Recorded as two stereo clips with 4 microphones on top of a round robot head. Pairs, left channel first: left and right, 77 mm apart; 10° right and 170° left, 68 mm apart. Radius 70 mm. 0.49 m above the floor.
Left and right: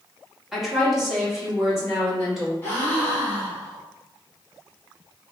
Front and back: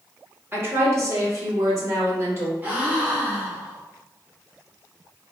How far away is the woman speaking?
About 1.3 m.